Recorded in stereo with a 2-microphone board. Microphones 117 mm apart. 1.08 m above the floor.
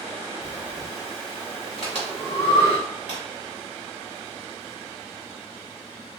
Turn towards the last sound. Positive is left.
turn(degrees=60)  # may be behind; listen again after turning